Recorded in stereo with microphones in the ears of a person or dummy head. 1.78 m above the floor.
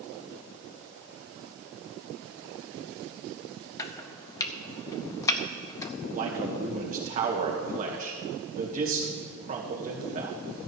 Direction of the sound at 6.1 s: 45° right (ahead or behind).